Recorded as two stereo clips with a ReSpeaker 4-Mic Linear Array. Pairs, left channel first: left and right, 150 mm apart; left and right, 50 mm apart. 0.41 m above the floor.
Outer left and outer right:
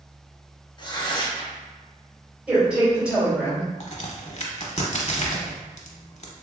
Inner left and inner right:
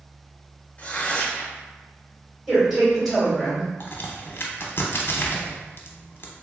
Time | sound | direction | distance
0.8 | tearing paper | 30° left (ahead or behind) | 0.7 m
2.5 | a woman speaking | 5° right (ahead or behind) | 1.8 m
3.8 | a crack | 50° left (ahead or behind) | 0.6 m